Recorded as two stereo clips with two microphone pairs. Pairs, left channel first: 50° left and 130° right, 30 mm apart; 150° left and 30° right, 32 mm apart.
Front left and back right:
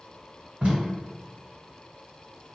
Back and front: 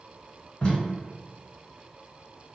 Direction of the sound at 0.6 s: 155° right.